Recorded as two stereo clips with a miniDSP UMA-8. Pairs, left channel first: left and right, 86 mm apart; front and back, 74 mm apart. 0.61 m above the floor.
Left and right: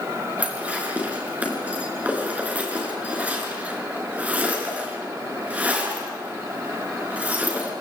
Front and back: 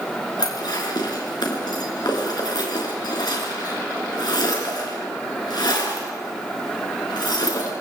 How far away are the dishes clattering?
About 5 m.